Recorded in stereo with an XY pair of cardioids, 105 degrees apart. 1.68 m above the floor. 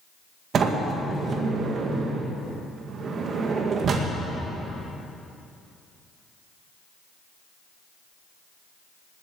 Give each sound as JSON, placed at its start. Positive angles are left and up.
{"t": 0.5, "sound": "a sliding door", "azimuth_deg": -55, "distance_m": 2.0}